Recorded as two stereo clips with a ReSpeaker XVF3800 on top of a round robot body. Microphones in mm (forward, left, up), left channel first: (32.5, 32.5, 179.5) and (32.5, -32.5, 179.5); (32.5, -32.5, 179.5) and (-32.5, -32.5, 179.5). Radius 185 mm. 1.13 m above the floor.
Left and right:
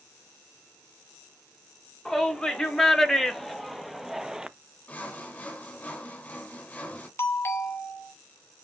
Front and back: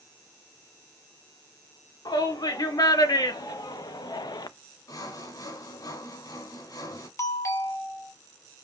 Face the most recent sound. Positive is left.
turn(degrees=40)